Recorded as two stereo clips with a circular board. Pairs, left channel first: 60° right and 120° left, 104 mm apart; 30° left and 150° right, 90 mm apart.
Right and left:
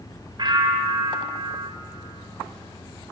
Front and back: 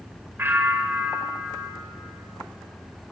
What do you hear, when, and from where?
0.4 s a bell: 150° left, 2 m